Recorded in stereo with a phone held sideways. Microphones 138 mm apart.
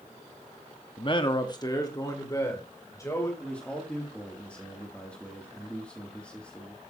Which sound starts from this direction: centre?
A man speaking, at 3.4 s.